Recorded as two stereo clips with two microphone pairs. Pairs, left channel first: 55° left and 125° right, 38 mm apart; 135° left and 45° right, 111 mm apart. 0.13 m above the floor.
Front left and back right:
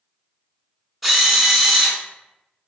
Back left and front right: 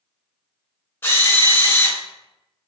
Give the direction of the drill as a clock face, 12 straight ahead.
7 o'clock.